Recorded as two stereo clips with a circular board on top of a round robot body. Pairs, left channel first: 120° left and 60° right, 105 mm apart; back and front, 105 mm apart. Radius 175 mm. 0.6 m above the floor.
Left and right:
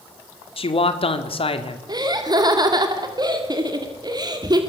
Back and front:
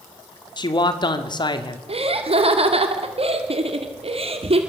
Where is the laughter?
15° right, 2.5 m.